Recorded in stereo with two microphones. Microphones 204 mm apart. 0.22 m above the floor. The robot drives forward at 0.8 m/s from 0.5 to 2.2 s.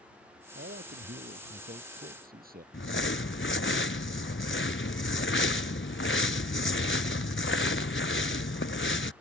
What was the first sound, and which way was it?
A man speaking, 60° right (ahead or behind).